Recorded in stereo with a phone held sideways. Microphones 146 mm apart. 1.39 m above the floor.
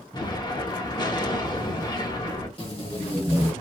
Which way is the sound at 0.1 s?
30° left (ahead or behind).